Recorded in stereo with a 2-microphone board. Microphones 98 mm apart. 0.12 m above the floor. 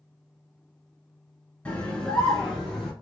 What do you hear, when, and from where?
1.6 s a scream: 15° left (ahead or behind), 1.1 m; by 2.9 s 5° left (ahead or behind), 1.6 m